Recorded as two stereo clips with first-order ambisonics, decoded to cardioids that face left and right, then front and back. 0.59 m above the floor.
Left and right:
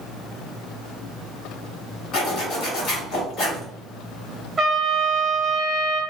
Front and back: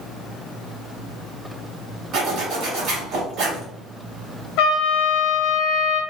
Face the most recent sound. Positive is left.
turn(degrees=-5)